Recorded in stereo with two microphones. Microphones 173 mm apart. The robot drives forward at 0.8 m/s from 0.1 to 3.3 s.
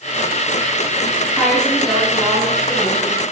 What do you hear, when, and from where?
1.4 s a woman speaking: centre (ahead or behind), 7.5 m